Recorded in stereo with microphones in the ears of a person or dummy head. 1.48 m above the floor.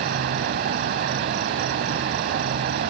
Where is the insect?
55° right (ahead or behind).